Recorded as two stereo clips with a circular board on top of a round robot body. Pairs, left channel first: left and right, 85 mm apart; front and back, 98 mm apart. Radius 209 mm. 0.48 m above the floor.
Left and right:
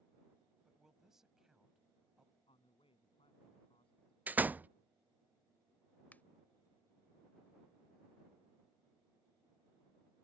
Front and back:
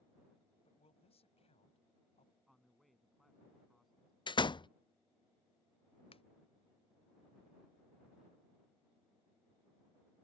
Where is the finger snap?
20° left.